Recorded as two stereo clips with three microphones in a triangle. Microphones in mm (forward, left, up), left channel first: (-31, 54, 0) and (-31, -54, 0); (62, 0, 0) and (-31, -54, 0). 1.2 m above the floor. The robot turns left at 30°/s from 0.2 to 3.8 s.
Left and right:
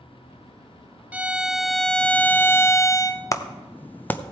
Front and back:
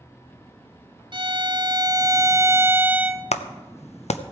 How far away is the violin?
About 0.5 m.